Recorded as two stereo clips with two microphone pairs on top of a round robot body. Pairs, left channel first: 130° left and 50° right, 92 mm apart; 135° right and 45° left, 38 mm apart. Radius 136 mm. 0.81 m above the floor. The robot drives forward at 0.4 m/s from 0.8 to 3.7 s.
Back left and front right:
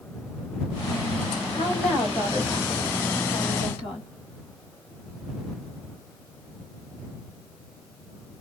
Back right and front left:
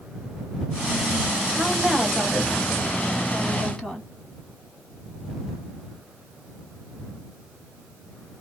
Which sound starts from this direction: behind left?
A woman speaking, at 1.5 s.